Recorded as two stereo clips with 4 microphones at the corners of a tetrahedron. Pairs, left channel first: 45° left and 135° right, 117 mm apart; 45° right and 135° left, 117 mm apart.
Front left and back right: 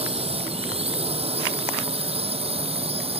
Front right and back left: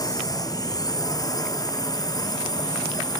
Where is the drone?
105° right; by 3.2 s 100° right.